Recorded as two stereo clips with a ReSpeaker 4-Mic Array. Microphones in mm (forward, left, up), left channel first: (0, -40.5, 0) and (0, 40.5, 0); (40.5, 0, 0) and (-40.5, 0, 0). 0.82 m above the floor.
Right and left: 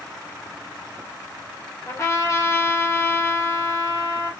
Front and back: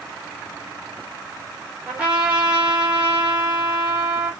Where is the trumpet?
115° right, 1.1 m.